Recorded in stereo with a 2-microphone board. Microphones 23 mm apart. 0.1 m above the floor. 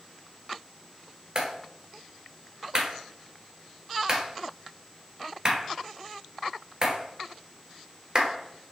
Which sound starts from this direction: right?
A clap, at 1.4 s.